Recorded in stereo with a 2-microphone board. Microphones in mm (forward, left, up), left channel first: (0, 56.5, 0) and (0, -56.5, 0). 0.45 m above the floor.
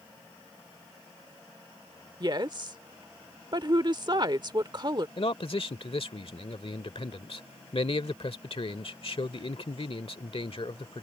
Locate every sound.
2.2 s a woman speaking: 40° right (ahead or behind)
5.2 s a man speaking: 55° left (ahead or behind)